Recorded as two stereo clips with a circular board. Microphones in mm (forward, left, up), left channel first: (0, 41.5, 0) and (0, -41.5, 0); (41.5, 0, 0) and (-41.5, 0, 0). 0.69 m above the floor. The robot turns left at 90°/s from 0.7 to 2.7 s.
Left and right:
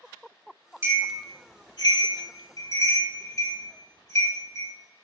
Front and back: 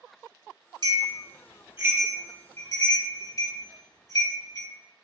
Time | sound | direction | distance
0.8 | a bell | 150° right | 1.4 m